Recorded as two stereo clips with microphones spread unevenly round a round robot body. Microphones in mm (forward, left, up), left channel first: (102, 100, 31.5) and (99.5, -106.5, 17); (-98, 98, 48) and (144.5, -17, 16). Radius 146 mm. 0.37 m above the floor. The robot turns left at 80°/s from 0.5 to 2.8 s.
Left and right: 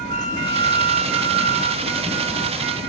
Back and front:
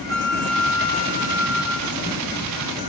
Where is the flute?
55° right, 1.2 m; by 2.1 s straight behind, 1.2 m.